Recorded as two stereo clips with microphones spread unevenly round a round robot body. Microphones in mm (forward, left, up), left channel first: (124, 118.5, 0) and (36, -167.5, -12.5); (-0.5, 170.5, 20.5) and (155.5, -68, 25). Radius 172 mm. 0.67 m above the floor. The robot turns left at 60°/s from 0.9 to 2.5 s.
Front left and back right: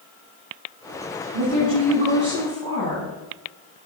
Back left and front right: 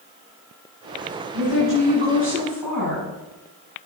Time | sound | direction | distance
1.3 | a woman speaking | 135° right | 5.5 m